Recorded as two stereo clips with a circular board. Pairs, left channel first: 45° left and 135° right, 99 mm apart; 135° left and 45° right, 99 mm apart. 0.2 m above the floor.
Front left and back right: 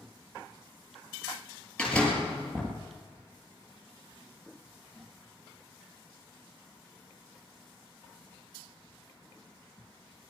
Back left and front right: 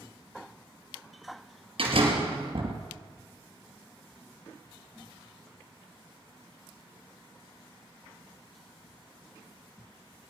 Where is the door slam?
35° right, 3.5 m.